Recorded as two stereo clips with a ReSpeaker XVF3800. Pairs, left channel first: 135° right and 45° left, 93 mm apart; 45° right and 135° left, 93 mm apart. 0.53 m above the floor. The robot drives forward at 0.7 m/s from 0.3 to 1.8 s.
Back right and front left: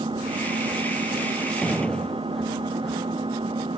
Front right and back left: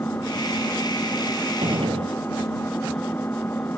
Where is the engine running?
20° left.